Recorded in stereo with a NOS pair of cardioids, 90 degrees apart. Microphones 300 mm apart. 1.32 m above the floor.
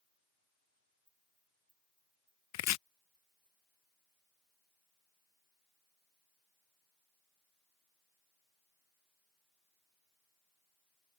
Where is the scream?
No scream in this recording.